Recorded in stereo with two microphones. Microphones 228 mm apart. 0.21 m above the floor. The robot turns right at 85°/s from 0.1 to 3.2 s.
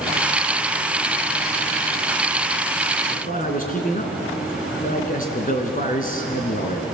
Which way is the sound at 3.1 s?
30° left (ahead or behind).